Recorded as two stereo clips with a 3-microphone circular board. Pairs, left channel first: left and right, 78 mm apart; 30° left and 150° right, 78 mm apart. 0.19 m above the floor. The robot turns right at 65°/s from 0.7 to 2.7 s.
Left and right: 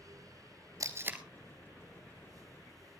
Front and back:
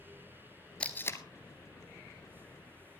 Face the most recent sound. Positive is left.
turn(degrees=80)